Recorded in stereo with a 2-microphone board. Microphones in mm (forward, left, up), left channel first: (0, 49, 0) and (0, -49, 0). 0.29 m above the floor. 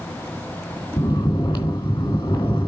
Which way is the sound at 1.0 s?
55° left (ahead or behind).